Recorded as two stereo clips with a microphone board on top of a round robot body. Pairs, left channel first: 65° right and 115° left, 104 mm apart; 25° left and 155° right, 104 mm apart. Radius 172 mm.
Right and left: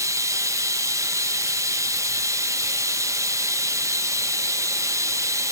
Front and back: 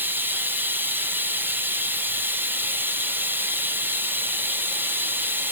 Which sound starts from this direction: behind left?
Running water, at 0.0 s.